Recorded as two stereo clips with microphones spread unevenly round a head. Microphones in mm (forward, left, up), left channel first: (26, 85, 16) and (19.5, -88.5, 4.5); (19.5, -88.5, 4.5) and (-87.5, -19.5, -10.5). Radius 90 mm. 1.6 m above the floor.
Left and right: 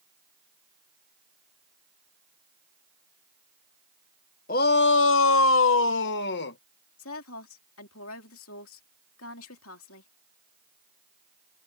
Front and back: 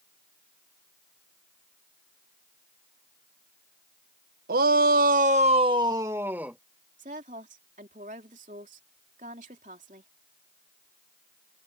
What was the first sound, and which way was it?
A shout, 130° left.